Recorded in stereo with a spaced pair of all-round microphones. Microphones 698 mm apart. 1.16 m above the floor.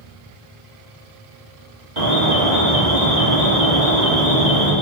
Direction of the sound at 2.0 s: 75° right (ahead or behind).